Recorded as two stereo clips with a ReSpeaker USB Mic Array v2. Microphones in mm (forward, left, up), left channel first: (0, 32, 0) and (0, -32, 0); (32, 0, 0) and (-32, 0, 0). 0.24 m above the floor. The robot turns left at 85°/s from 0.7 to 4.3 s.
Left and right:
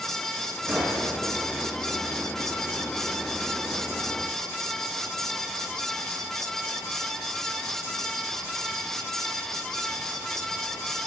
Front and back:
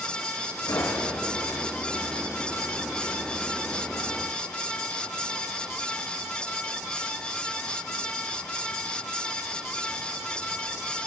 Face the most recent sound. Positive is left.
turn(degrees=40)